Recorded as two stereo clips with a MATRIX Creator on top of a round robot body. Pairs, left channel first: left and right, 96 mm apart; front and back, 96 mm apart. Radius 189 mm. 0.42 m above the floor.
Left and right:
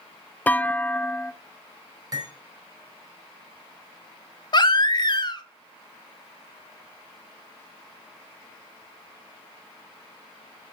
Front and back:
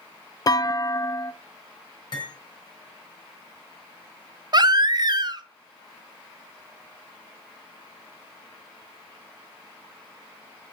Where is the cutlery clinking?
40° right, 4 m.